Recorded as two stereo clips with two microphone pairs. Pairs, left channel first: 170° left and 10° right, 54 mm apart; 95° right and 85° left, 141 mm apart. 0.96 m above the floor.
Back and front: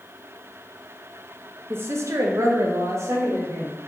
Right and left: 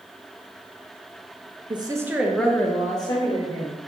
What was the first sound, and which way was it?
A woman speaking, 35° left.